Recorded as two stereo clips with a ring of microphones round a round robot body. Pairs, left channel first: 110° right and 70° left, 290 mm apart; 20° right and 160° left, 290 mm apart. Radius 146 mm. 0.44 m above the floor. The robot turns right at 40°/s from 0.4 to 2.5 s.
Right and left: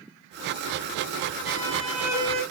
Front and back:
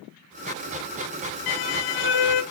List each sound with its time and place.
1.5 s a violin: 40° right, 0.7 m; by 2.4 s straight ahead, 0.7 m